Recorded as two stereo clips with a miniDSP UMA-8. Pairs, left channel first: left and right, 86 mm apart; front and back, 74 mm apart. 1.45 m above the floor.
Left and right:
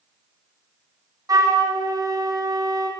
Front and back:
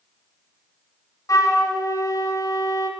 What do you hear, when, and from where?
1.3 s a flute: 45° right, 0.7 m